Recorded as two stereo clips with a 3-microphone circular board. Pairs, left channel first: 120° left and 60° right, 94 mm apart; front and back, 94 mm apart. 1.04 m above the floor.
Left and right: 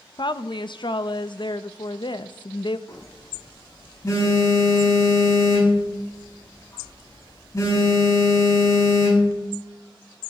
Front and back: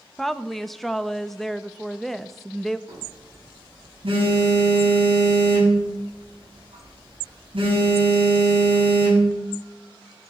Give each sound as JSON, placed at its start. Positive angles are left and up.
{"t": 0.2, "sound": "a woman speaking", "azimuth_deg": 85, "distance_m": 0.7}
{"t": 2.9, "sound": "a phone buzzing", "azimuth_deg": 170, "distance_m": 8.0}